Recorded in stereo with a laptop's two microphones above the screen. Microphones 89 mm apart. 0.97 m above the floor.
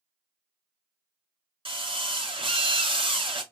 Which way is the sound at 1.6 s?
80° right.